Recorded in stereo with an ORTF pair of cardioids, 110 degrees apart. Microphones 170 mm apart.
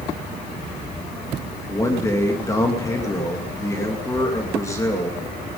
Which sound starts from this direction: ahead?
A man speaking, at 1.7 s.